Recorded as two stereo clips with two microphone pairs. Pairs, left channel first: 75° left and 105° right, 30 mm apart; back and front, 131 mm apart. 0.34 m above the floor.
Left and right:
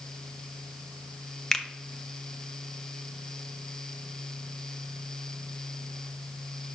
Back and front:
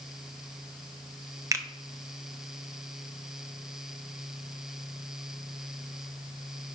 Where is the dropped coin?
No dropped coin in this recording.